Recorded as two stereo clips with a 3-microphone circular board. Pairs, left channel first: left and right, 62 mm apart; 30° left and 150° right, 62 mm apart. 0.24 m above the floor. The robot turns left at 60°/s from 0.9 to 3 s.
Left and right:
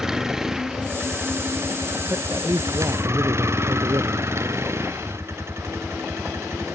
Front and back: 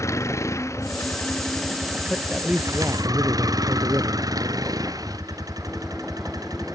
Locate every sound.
0.0 s a vehicle: 10° right; by 6.8 s 135° right
2.1 s a man speaking: 50° right; by 4.3 s 105° right